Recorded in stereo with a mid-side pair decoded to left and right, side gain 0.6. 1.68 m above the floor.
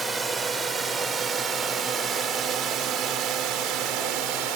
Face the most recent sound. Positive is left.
turn(degrees=-75)